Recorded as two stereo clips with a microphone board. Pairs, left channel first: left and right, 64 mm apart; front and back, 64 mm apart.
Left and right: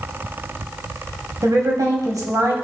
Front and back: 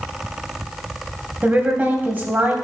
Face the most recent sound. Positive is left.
turn(degrees=-115)